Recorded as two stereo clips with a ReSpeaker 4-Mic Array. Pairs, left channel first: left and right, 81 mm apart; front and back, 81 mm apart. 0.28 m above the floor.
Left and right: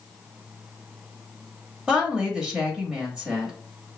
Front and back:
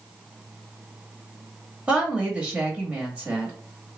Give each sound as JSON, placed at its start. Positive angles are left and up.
{"t": 1.9, "sound": "a woman speaking", "azimuth_deg": -150, "distance_m": 1.1}